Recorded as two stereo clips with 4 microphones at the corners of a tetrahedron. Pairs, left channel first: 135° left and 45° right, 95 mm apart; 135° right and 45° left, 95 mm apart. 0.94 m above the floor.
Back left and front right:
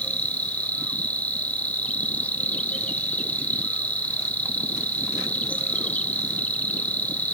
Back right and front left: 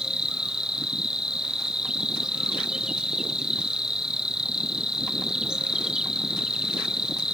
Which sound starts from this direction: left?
An insect, at 0.0 s.